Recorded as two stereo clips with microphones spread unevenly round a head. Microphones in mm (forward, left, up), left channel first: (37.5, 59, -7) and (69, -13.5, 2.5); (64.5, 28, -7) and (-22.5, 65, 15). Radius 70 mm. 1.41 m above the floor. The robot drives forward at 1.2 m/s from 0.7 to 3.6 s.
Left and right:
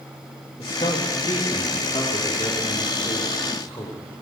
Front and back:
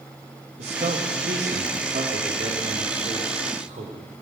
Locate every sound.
0.6 s a man speaking: 160° left, 2.5 m; by 4.0 s 170° left, 5.5 m